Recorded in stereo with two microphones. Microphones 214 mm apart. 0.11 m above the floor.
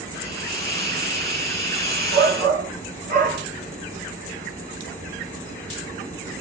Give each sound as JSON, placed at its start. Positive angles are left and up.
{"t": 0.1, "sound": "a hiss", "side_deg": 15, "distance_m": 1.7}
{"t": 2.1, "sound": "a shout", "side_deg": -40, "distance_m": 2.0}